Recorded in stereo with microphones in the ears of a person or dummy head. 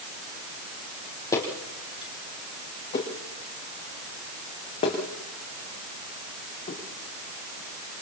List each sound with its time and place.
1.3 s footsteps: 20° left (ahead or behind), 3 m; by 6.8 s 40° left (ahead or behind), 6 m